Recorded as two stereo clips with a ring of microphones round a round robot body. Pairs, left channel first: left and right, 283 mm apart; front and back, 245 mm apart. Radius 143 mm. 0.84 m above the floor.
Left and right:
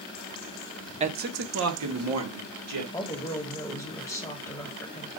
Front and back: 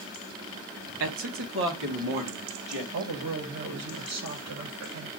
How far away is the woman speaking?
About 1.3 m.